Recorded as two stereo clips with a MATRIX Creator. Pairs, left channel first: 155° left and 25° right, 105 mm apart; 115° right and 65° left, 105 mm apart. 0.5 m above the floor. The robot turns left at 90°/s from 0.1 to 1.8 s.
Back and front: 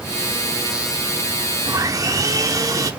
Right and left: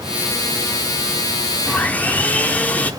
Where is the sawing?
30° right, 1.0 m; by 2.9 s 45° right, 1.0 m.